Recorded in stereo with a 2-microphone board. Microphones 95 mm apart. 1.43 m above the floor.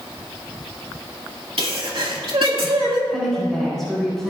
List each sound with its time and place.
1.6 s a sneeze: 70° right (ahead or behind), 2.0 m
3.1 s a woman speaking: centre (ahead or behind), 4 m